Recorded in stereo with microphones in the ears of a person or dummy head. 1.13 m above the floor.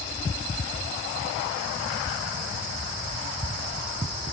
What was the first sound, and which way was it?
Only background noise.